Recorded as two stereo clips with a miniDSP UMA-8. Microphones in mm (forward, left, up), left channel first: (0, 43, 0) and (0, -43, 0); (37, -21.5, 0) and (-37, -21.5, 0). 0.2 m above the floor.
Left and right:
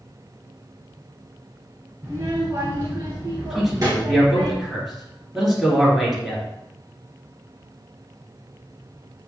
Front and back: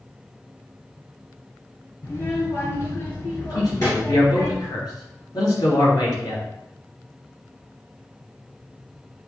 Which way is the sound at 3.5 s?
5° right.